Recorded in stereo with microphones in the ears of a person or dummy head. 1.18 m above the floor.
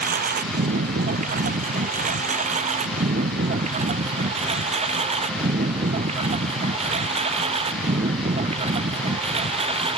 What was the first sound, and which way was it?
A lawn mower, 45° right (ahead or behind).